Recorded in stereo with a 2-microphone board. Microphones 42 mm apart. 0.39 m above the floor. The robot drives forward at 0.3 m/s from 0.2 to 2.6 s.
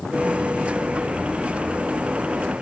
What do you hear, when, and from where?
Only background noise.